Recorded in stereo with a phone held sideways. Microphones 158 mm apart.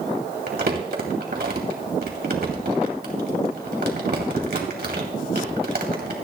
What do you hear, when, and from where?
0.5 s crumpling: 80° right, 2.5 m